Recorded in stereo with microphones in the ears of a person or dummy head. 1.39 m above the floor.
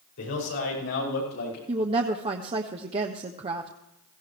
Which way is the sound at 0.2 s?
70° left (ahead or behind).